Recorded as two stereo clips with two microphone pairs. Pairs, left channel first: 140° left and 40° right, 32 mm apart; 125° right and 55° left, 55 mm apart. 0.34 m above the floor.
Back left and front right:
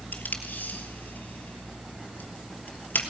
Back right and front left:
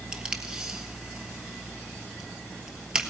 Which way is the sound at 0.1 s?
130° left.